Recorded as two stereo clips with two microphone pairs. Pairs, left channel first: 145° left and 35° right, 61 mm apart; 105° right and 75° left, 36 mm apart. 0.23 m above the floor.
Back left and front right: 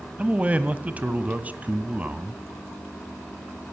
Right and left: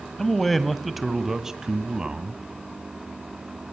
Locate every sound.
0.2 s a man speaking: 50° right, 1.3 m; by 2.4 s 20° left, 1.7 m